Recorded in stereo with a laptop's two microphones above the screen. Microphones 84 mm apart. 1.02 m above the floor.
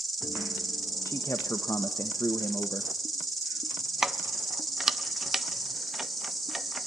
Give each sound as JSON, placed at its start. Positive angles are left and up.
{"t": 0.0, "sound": "an insect", "side_deg": 0, "distance_m": 3.5}
{"t": 1.1, "sound": "a man speaking", "side_deg": 35, "distance_m": 1.3}
{"t": 4.0, "sound": "keys jangling", "side_deg": -5, "distance_m": 0.6}